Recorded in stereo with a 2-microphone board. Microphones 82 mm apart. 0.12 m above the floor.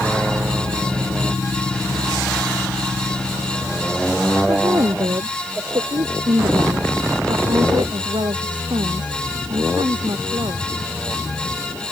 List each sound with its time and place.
4.5 s a woman speaking: 55° right (ahead or behind); by 10.7 s 75° right (ahead or behind)